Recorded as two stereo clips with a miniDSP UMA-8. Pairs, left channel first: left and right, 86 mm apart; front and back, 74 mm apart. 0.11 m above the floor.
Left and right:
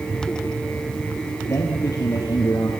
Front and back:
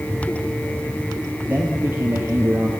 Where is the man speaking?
125° left, 2.5 m.